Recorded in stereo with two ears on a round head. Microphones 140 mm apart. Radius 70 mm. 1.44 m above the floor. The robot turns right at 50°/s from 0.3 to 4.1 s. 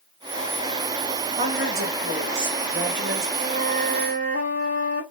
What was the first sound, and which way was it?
A woman speaking, 140° right.